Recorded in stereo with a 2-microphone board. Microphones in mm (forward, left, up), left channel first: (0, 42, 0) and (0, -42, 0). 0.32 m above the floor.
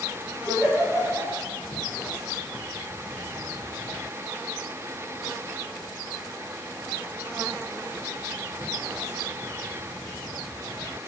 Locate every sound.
0.5 s a giggle: 45° left (ahead or behind), 3.5 m